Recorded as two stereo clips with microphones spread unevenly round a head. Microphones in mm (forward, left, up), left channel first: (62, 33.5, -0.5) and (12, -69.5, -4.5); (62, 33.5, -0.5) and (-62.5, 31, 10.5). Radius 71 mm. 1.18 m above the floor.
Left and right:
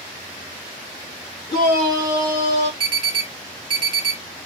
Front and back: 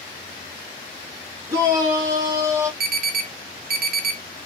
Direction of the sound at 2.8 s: 175° right.